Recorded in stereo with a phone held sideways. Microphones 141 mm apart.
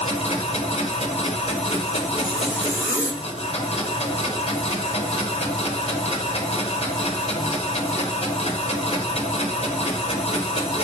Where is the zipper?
10° right (ahead or behind), 1.2 m.